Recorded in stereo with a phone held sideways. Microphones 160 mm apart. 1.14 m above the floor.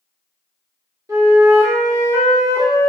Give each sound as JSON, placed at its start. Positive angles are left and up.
{"t": 1.1, "sound": "a flute", "side_deg": -20, "distance_m": 1.2}